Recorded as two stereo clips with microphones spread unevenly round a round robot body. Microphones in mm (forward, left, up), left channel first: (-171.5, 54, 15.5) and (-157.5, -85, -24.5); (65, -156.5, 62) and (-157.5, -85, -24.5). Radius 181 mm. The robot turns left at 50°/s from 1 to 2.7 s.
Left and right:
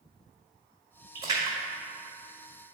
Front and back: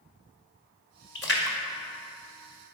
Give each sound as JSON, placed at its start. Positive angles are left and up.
{"t": 1.1, "sound": "a splash", "azimuth_deg": -60, "distance_m": 1.8}